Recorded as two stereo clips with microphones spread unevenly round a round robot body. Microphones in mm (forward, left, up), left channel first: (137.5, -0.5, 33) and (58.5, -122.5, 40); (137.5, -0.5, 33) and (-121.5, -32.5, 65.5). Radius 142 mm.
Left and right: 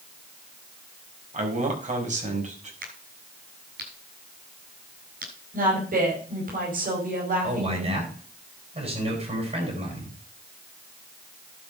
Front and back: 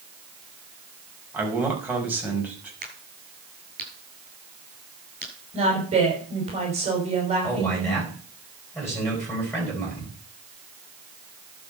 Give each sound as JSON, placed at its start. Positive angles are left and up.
{"t": 1.3, "sound": "a man speaking", "azimuth_deg": -90, "distance_m": 5.0}
{"t": 2.8, "sound": "a crack", "azimuth_deg": -110, "distance_m": 7.0}
{"t": 5.5, "sound": "a woman speaking", "azimuth_deg": -105, "distance_m": 5.5}
{"t": 7.4, "sound": "a man speaking", "azimuth_deg": -80, "distance_m": 9.0}